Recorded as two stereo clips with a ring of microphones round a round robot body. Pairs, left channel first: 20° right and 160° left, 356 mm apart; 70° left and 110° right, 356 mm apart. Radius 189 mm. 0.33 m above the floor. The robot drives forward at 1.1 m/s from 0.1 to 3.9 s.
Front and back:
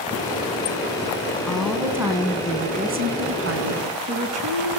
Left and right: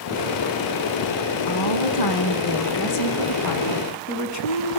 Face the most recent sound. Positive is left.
turn(degrees=110)